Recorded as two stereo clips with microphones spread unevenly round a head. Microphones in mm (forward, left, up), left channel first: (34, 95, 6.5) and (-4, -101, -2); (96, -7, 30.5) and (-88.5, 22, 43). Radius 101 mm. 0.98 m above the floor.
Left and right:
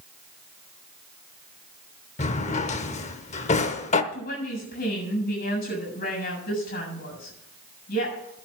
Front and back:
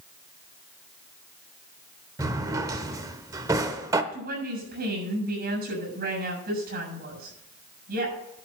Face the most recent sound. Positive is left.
turn(degrees=130)